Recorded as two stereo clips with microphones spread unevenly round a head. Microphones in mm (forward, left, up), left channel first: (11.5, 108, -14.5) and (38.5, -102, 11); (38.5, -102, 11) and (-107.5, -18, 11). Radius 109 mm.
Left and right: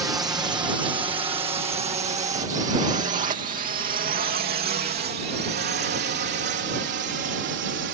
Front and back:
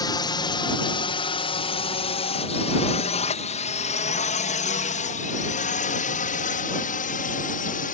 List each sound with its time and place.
0.0 s a drone: 15° right; by 8.0 s 55° right